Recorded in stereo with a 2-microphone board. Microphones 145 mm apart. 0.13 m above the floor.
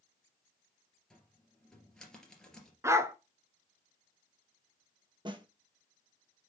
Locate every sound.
1.1 s a cupboard door: 5° left (ahead or behind), 2.5 m
2.8 s a dog barking: 20° right (ahead or behind), 0.7 m
5.2 s a snare drum: 35° right (ahead or behind), 1.0 m